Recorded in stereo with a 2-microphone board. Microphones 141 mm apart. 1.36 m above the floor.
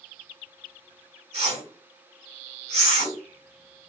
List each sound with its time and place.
1.3 s a whoosh: 45° right (ahead or behind), 1.6 m